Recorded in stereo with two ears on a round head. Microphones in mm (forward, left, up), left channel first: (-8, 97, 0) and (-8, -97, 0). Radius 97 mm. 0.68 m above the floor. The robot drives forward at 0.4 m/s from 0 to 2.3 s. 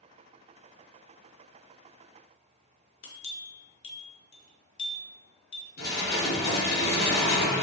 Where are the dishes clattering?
50° left (ahead or behind), 1.3 m.